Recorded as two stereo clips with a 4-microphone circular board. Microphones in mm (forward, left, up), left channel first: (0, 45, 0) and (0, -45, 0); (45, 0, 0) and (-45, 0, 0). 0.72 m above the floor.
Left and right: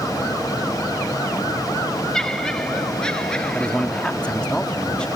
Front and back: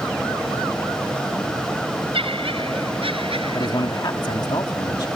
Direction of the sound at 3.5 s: 15° left.